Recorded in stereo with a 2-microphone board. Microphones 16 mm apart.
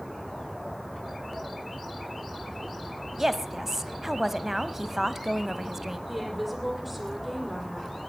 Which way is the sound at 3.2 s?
20° right (ahead or behind).